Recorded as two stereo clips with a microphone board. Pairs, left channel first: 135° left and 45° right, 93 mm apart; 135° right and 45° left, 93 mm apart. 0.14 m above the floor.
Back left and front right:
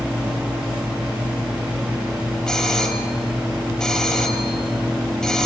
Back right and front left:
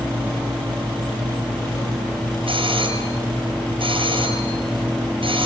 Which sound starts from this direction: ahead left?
A doorbell, at 2.5 s.